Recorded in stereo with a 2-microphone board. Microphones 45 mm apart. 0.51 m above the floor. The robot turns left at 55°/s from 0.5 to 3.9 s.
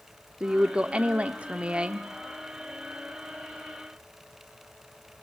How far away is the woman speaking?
About 1.0 m.